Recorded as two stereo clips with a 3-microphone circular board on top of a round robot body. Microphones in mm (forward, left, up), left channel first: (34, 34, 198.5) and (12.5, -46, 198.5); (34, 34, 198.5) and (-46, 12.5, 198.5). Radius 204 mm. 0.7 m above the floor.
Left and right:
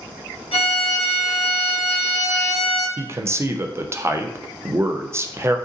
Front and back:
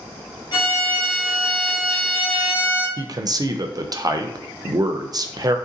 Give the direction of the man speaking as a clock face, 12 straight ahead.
5 o'clock.